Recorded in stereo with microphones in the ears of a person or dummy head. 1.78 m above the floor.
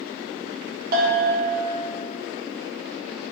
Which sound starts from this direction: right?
A bell, at 0.9 s.